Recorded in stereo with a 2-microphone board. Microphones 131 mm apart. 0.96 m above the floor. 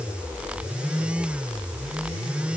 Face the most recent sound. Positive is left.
No sound to turn to.